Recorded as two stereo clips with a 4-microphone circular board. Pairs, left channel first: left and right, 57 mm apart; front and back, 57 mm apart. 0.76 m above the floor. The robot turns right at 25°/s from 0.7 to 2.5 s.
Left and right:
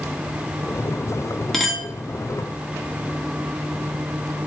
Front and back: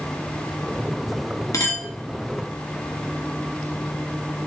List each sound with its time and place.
1.5 s a clink: straight ahead, 0.8 m; by 1.9 s 10° left, 0.8 m